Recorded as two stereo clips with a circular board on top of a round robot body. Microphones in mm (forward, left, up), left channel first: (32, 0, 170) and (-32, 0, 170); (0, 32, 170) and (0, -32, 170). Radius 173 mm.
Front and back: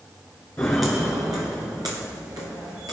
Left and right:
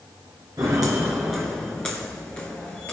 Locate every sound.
0.6 s footsteps: 60° right, 0.7 m; by 2.9 s 155° left, 1.2 m